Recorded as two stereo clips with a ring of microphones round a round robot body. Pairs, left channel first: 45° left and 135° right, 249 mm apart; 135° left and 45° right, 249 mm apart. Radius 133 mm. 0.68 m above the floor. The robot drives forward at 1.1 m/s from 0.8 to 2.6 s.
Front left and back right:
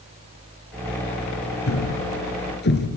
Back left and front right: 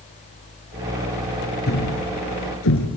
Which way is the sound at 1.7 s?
80° left.